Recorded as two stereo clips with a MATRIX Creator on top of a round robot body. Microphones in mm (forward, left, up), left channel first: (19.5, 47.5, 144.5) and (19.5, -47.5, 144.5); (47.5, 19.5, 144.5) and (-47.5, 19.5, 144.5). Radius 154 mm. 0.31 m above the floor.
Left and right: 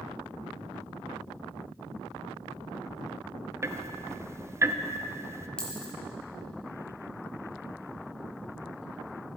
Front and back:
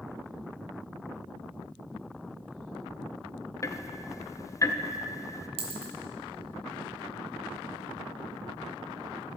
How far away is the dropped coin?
About 1.6 m.